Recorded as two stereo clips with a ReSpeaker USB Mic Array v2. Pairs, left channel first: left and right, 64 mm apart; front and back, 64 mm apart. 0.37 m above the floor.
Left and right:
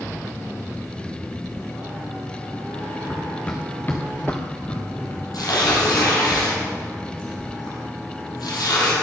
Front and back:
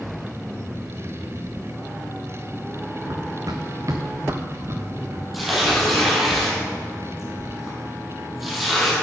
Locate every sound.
3.1 s running footsteps: 175° left, 1.3 m; by 5.2 s 140° left, 4 m
5.3 s tearing paper: 95° left, 4 m